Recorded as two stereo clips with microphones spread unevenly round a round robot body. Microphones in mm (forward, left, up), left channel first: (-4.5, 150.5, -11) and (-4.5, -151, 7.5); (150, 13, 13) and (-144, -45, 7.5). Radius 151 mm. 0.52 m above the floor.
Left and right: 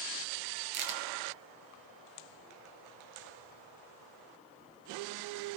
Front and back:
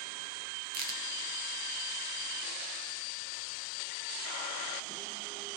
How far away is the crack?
About 3 m.